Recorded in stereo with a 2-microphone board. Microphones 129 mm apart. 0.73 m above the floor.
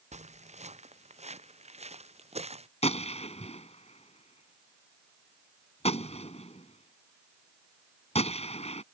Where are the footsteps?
60° right (ahead or behind); by 2.7 s 55° right (ahead or behind).